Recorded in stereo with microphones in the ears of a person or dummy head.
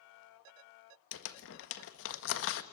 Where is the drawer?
I don't hear a drawer.